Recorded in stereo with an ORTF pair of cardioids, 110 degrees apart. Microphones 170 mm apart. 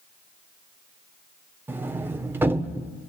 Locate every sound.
1.7 s a sliding door: 10° right, 1.5 m